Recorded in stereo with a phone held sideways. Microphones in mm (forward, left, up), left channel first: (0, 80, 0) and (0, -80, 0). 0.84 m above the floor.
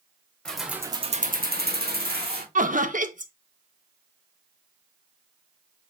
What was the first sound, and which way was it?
Keys jangling, 5° left (ahead or behind).